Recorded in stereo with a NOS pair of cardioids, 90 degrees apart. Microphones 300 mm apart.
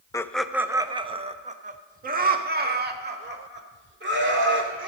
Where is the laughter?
10° left, 0.6 m; by 4.9 s 35° right, 3 m.